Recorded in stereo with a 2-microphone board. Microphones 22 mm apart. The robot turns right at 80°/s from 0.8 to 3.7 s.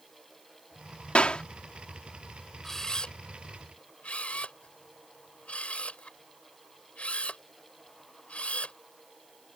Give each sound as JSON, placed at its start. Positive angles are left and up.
{"t": 1.1, "sound": "a clap", "side_deg": 65}
{"t": 2.6, "sound": "a camera shutter", "side_deg": 15}